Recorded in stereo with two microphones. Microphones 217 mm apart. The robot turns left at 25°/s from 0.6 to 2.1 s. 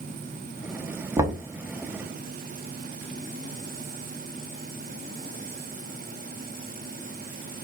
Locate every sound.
1.2 s knocking: 15° right (ahead or behind), 0.7 m; by 1.4 s 20° right (ahead or behind), 0.7 m